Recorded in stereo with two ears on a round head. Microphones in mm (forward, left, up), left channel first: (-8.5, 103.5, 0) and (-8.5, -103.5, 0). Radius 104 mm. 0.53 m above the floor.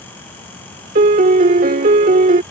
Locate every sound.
0.9 s a piano: 35° right (ahead or behind)